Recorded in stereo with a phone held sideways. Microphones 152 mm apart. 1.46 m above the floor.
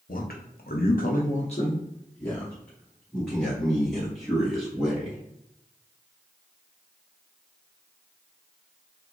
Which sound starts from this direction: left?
A man speaking, at 0.1 s.